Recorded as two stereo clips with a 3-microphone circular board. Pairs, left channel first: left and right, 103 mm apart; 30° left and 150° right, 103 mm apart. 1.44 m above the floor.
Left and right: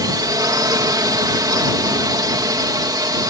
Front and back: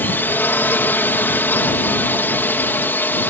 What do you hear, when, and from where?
0.0 s a drone: 40° right